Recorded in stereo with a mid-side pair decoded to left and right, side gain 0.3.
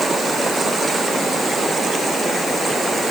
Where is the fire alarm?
I don't hear a fire alarm.